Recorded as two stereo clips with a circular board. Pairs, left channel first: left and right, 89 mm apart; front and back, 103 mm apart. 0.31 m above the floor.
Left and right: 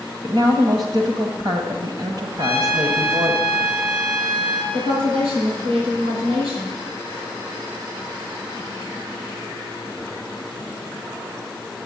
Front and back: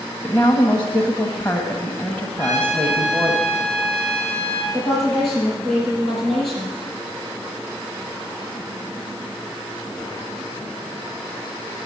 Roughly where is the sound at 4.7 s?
Right.